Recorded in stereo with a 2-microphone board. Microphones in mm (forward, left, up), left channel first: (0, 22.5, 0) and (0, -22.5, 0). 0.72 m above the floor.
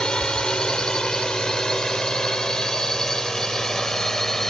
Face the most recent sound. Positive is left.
turn(degrees=10)  # may be behind; listen again after turning